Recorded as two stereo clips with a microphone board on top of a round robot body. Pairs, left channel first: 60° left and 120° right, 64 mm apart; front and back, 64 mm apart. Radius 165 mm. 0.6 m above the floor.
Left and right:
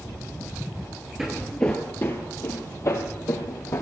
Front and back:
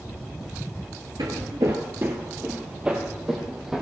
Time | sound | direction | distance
1.2 | footsteps | 160° left | 0.7 m